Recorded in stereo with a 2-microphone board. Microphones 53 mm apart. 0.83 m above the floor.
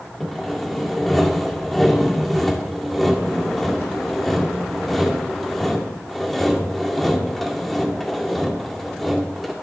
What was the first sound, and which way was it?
Sawing, 5° left (ahead or behind).